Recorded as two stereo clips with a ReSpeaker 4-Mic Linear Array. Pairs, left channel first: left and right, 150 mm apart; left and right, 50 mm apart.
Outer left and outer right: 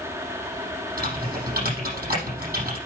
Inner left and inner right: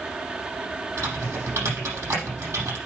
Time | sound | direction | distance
1.0 | typing on a keyboard | 90° right | 6.5 m